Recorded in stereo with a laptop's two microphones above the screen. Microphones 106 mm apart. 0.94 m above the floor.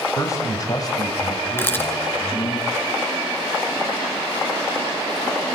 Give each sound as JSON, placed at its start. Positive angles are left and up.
{"t": 0.2, "sound": "a man speaking", "side_deg": 30, "distance_m": 4.5}
{"t": 1.6, "sound": "a camera shutter", "side_deg": 20, "distance_m": 2.5}